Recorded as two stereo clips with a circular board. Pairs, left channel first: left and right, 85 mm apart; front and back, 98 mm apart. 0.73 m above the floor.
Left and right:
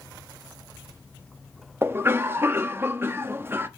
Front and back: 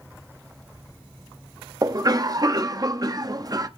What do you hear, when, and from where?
1.8 s a cough: 145° right, 0.8 m